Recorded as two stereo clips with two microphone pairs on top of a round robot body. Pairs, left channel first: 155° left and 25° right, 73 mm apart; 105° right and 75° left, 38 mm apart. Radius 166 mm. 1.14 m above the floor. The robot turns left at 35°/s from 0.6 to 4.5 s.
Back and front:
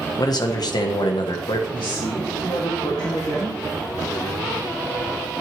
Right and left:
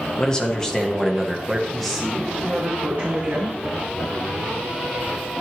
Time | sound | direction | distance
0.2 | a man speaking | straight behind | 1.5 m
1.7 | a woman speaking | 170° left | 2.5 m